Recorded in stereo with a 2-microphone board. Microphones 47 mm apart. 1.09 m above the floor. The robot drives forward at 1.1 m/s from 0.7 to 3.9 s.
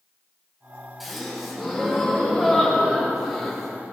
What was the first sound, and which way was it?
A gasp, centre (ahead or behind).